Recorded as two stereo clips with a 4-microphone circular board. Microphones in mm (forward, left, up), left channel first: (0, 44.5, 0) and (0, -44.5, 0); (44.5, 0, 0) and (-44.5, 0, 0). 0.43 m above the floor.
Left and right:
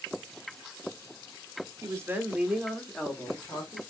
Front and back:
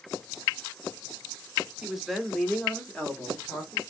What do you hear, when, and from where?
1.8 s a woman speaking: 100° right, 0.9 m; by 3.8 s 55° left, 1.1 m